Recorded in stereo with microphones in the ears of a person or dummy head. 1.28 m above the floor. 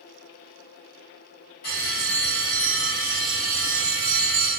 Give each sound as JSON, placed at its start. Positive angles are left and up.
{"t": 1.6, "sound": "a bell", "side_deg": 50, "distance_m": 1.2}